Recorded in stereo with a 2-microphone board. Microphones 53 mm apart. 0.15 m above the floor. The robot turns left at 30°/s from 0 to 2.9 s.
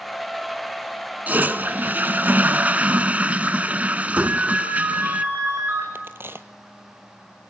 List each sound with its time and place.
1.3 s a toilet flushing: 80° right, 0.7 m; by 5.2 s 130° right, 0.7 m
4.2 s a ringtone: 55° right (ahead or behind), 8.5 m
6.0 s a crack: 45° right (ahead or behind), 1.2 m